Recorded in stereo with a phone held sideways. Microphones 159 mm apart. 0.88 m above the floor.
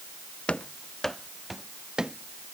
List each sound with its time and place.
0.5 s running footsteps: 5° left (ahead or behind); by 2.5 s 5° right (ahead or behind)